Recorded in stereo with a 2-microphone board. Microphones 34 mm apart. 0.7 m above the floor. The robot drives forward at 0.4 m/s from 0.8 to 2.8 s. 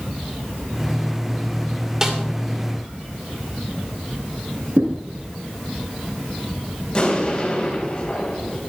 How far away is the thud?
About 3.5 m.